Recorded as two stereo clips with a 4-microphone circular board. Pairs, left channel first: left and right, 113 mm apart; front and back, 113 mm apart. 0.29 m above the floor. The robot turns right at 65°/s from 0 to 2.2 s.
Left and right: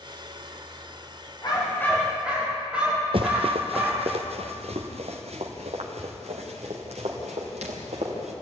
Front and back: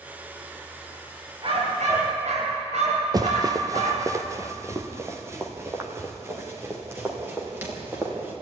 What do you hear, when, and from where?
1.4 s a dog barking: 140° left, 10 m; by 4.1 s 170° right, 10 m
3.1 s running footsteps: 125° right, 1.9 m; by 8.3 s 110° right, 8.5 m